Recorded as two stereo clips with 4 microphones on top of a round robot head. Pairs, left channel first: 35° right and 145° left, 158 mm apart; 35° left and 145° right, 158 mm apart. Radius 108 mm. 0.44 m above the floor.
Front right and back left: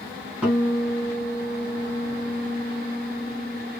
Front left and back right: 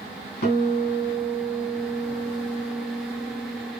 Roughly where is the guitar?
Ahead left.